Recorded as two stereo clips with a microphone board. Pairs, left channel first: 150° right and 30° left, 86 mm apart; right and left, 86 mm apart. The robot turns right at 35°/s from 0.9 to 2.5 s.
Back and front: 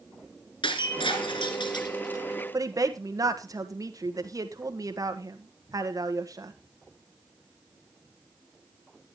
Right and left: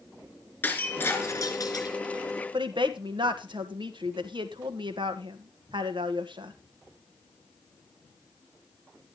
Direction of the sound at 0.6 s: 160° right.